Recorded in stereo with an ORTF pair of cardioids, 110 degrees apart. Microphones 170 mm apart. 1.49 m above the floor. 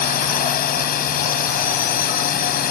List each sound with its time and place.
0.0 s a drone: 60° left